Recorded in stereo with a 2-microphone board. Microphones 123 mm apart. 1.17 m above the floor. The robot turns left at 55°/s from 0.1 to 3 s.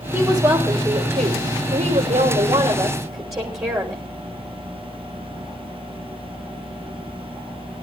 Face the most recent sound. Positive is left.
turn(degrees=-155)